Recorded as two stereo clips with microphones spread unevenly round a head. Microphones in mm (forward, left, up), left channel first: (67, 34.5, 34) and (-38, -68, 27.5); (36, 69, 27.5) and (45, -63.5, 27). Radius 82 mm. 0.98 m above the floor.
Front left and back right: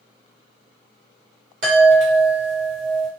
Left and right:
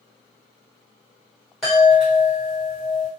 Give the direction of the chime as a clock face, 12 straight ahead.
6 o'clock.